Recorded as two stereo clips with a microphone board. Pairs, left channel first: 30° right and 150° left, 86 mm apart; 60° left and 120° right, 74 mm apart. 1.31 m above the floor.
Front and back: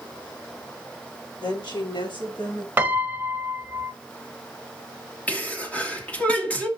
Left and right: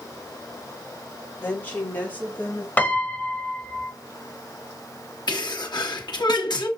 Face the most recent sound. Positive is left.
turn(degrees=45)